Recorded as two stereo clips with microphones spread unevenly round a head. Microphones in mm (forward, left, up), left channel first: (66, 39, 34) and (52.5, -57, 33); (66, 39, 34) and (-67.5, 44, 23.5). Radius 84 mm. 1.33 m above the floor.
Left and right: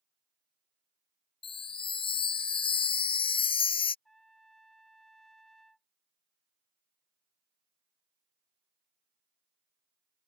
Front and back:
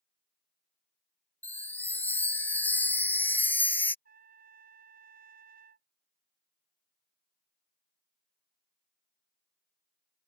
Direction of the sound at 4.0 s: 170° left.